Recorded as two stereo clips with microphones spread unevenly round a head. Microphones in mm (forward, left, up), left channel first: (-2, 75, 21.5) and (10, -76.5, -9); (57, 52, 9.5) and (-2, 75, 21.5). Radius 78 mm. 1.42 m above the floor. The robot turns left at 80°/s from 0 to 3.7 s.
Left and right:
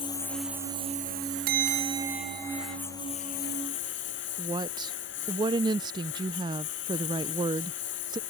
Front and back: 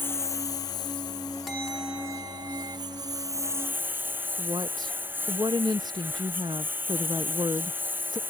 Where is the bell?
110° right; by 2.8 s 145° left.